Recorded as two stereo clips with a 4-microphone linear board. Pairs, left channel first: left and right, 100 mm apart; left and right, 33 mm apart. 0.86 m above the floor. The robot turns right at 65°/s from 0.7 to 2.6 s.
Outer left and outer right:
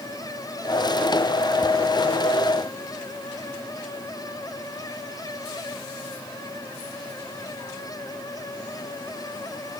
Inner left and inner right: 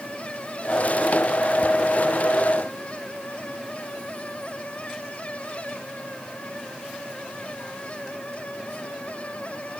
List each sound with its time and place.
Only background noise.